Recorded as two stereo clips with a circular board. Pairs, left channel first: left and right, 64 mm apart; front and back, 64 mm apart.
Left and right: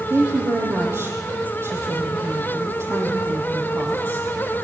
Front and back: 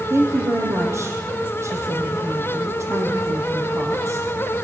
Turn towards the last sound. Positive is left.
turn(degrees=-135)